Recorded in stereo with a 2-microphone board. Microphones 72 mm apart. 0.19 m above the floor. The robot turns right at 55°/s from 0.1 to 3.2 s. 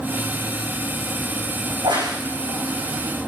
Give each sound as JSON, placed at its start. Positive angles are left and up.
{"t": 1.7, "sound": "a crack", "side_deg": -80, "distance_m": 9.0}